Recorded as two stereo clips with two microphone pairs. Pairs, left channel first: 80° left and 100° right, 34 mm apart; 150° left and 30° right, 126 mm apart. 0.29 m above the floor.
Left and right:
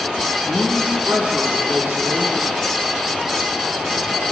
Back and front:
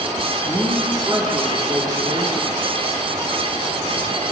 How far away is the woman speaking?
About 9.5 m.